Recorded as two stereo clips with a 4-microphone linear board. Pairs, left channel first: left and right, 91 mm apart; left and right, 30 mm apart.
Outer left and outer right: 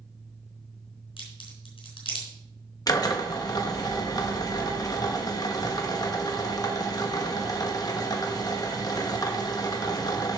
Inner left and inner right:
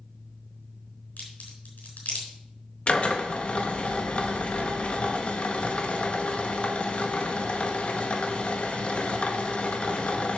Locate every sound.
1.2 s a crack: 85° left, 4 m
2.9 s a drill: 45° left (ahead or behind), 1.2 m